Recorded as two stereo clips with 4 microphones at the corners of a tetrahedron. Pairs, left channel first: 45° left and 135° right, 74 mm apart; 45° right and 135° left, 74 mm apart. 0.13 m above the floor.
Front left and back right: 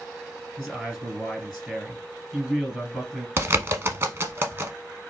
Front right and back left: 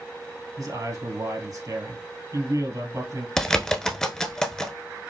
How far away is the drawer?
No drawer in this recording.